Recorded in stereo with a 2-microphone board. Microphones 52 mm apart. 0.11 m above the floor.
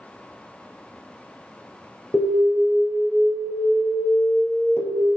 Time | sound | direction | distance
2.1 | an alarm | 50° left (ahead or behind) | 2.5 m